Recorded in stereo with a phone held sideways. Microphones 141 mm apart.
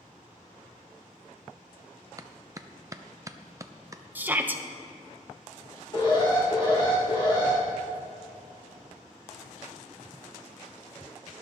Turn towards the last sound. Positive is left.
turn(degrees=35)  # may be behind; listen again after turning